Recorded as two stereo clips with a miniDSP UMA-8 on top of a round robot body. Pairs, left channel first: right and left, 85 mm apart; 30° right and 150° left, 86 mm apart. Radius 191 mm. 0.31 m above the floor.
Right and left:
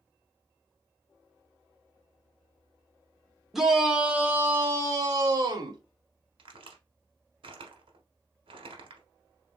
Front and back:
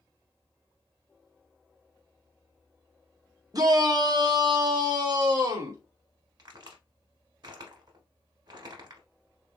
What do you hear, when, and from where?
3.5 s a shout: 175° left, 1.5 m; by 5.8 s 120° left, 1.7 m
6.4 s a crack: 110° left, 1.1 m